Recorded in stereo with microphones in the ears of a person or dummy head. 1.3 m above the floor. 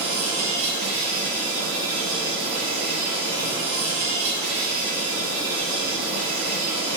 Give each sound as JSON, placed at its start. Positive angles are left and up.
{"t": 0.0, "sound": "an insect", "side_deg": -55, "distance_m": 1.7}